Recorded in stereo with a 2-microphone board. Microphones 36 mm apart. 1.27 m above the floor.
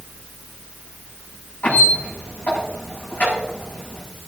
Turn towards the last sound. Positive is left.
turn(degrees=55)  # may be behind; listen again after turning